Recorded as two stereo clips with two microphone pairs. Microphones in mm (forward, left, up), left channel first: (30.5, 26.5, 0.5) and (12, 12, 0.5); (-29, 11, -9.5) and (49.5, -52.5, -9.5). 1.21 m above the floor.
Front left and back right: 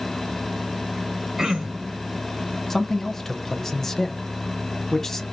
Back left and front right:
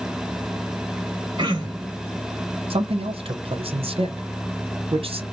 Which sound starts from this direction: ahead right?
A man speaking, at 2.7 s.